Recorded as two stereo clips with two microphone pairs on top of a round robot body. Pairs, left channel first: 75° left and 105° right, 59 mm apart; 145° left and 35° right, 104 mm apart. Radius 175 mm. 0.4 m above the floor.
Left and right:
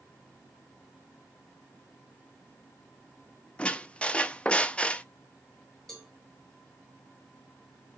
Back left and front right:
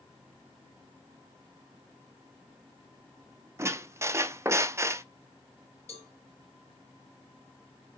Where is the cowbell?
155° left, 3 m.